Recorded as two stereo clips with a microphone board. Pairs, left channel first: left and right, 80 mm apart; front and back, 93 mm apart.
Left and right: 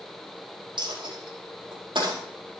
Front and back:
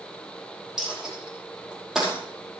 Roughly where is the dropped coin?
Right.